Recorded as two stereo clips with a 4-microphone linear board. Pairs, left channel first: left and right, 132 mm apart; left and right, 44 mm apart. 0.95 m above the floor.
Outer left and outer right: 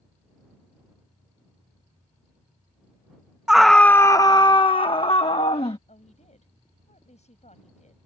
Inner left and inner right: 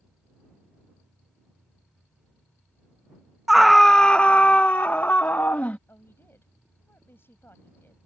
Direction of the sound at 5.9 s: 60° left (ahead or behind).